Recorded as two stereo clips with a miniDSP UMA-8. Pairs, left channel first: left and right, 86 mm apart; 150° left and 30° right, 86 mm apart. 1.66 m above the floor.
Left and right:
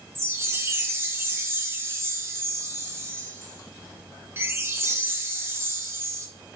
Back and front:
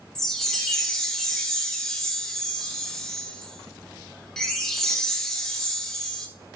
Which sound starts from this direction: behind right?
A chime, at 0.1 s.